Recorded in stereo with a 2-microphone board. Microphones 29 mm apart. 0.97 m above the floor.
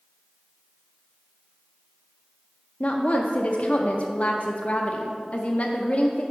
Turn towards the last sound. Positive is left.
turn(degrees=55)  # may be behind; listen again after turning